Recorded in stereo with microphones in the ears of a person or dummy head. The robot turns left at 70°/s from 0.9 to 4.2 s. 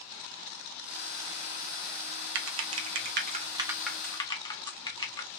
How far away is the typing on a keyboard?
About 0.6 m.